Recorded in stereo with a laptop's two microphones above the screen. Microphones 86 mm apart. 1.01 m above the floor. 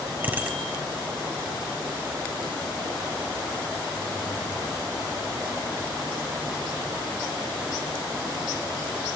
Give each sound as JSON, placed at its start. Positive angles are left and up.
{"t": 0.2, "sound": "a bicycle bell", "side_deg": -20, "distance_m": 4.5}